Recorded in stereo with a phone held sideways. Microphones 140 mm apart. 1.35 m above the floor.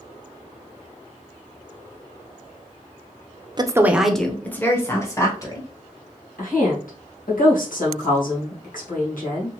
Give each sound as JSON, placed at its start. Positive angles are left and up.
{"t": 3.6, "sound": "a woman speaking", "side_deg": -30, "distance_m": 0.5}
{"t": 6.4, "sound": "a woman speaking", "side_deg": 70, "distance_m": 2.0}